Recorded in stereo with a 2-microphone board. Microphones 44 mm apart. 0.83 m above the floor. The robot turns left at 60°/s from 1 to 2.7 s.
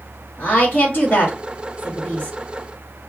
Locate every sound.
0.4 s a woman speaking: 45° left (ahead or behind), 1.3 m; by 2.4 s 40° left (ahead or behind), 1.3 m